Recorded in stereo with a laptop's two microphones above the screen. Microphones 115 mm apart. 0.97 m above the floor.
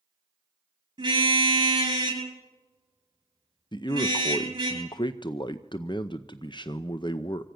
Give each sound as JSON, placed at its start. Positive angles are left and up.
{"t": 1.0, "sound": "a car horn", "side_deg": -40, "distance_m": 8.5}
{"t": 3.7, "sound": "a man speaking", "side_deg": 40, "distance_m": 0.6}